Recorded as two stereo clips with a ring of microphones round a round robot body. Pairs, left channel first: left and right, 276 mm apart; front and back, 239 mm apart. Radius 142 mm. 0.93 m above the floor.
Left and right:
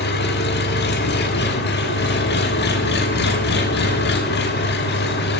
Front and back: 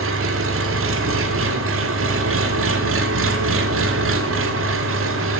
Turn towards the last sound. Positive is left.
turn(degrees=145)